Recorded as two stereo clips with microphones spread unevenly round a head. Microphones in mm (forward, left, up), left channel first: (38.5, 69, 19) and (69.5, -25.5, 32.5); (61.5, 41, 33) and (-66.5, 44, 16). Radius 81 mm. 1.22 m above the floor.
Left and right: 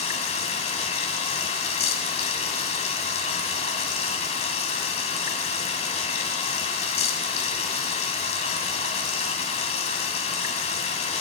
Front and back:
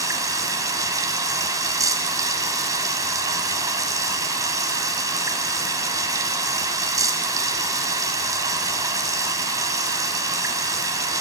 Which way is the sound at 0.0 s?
115° left.